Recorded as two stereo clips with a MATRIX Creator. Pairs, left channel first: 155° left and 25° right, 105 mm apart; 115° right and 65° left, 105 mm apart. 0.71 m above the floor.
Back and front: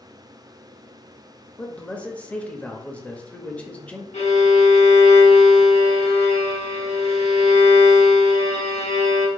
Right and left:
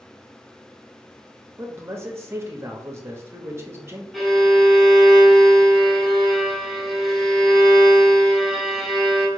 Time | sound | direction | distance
1.6 | a man speaking | 95° left | 0.7 m
4.1 | a violin | 160° left | 1.0 m